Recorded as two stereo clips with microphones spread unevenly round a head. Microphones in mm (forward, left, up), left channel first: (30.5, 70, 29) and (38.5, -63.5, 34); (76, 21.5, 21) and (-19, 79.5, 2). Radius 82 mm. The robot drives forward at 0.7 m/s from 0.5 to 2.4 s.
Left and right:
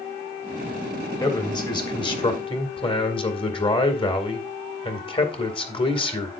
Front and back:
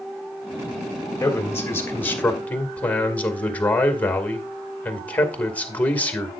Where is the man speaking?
35° left, 3 m; by 6.4 s 45° left, 2.5 m.